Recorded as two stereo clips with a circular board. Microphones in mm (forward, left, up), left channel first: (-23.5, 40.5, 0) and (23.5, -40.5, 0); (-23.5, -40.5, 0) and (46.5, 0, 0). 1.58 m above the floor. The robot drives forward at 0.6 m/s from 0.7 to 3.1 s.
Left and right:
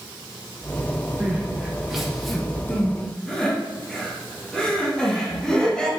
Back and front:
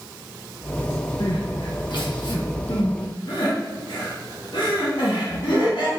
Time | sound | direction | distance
1.2 | crying | 130° right | 1.1 m